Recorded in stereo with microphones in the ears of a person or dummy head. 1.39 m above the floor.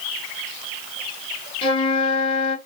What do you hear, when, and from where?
1.6 s a flute: 35° left (ahead or behind), 1.2 m